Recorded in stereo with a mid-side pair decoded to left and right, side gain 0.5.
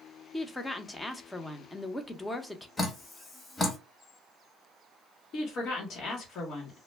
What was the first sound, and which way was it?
A woman speaking, 15° left.